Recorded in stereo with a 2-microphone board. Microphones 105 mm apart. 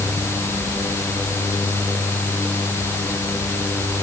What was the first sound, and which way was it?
Only background noise.